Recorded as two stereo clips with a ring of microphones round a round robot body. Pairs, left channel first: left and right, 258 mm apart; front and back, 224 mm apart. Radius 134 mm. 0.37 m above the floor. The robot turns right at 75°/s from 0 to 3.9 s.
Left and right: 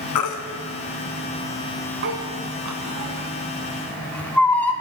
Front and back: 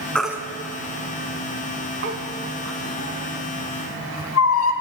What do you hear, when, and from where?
0.1 s a baby crying: 85° left, 1.9 m; by 4.7 s 5° left, 1.9 m